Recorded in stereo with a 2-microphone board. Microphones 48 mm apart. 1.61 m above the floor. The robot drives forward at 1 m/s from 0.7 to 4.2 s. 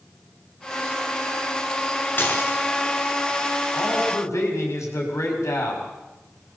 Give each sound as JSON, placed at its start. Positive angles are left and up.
{"t": 2.2, "sound": "dishes clattering", "side_deg": 45, "distance_m": 3.5}
{"t": 3.7, "sound": "a man speaking", "side_deg": 80, "distance_m": 6.5}